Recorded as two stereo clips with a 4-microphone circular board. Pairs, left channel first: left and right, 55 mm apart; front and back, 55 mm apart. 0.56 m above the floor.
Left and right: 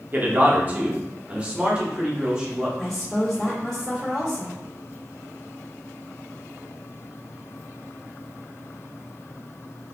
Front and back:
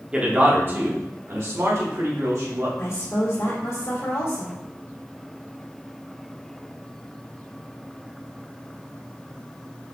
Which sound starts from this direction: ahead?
A woman speaking, at 2.8 s.